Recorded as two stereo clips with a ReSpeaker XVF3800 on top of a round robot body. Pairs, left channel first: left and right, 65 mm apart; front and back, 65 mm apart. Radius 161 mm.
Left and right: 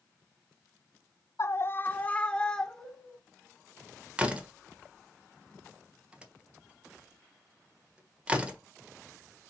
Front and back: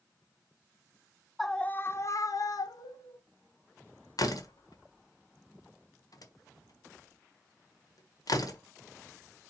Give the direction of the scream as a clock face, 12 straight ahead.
9 o'clock.